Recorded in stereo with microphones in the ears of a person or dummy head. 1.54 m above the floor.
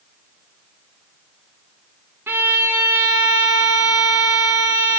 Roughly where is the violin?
Centre.